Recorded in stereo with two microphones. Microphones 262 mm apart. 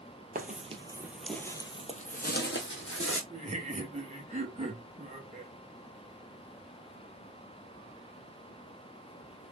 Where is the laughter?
25° right (ahead or behind), 1.3 m.